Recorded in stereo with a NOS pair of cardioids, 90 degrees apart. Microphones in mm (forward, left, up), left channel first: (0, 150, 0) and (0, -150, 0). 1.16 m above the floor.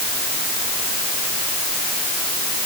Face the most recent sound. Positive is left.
No sound to turn to.